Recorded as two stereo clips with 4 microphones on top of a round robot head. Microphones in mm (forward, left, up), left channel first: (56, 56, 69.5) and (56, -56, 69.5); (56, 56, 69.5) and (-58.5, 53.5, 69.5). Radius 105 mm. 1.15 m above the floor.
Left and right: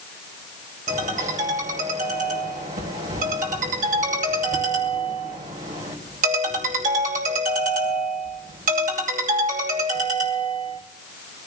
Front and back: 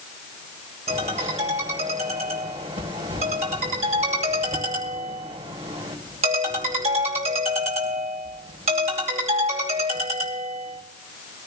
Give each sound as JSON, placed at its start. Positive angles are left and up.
{"t": 0.9, "sound": "a ringtone", "azimuth_deg": -125, "distance_m": 2.5}